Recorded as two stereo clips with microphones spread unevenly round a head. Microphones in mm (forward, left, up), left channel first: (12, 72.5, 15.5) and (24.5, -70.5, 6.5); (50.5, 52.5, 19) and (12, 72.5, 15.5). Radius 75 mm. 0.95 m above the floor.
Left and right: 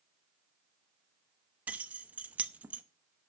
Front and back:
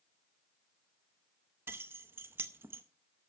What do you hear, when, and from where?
1.7 s keys jangling: 165° right, 0.6 m